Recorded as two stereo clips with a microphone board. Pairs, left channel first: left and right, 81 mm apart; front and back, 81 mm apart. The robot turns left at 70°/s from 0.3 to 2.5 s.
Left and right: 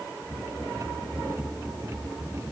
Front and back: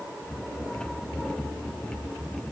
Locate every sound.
Only background noise.